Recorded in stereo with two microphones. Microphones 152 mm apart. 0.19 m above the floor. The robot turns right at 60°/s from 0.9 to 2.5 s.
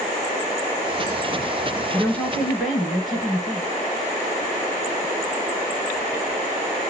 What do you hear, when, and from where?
1.9 s a woman speaking: 15° left (ahead or behind), 1.7 m; by 3.7 s centre (ahead or behind), 1.7 m